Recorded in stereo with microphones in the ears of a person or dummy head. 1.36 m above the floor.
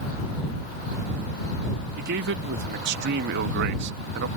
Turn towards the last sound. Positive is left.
turn(degrees=-65)  # may be behind; listen again after turning